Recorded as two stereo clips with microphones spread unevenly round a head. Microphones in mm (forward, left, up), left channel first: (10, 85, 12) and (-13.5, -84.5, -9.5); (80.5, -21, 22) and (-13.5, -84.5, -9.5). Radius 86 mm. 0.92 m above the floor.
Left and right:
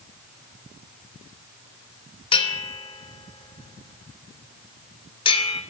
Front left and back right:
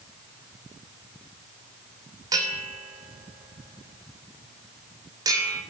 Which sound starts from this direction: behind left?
A bell, at 2.3 s.